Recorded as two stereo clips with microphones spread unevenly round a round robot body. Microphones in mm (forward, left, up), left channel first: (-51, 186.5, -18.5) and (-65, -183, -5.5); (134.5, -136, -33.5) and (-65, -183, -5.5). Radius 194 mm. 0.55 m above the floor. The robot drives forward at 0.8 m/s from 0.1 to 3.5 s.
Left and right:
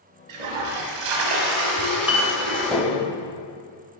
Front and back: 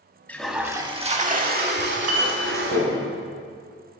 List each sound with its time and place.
0.3 s a toilet flushing: 70° right, 1.1 m; by 2.8 s 145° right, 2.0 m
1.8 s a clink: straight behind, 1.5 m